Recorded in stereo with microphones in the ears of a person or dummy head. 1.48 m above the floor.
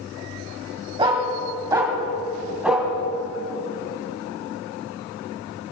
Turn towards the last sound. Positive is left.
turn(degrees=-5)  # may be behind; listen again after turning